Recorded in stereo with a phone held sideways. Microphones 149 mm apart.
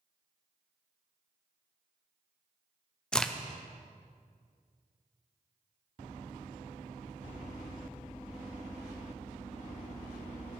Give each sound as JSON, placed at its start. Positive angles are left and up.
{"t": 3.1, "sound": "a crack", "side_deg": 5, "distance_m": 0.6}